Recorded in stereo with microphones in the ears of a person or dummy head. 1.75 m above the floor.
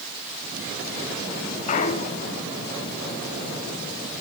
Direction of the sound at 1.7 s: 40° left (ahead or behind).